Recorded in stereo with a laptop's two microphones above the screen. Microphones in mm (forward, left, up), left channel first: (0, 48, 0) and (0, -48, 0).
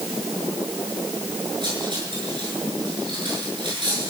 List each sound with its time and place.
1.6 s cutlery clinking: 55° right (ahead or behind), 8 m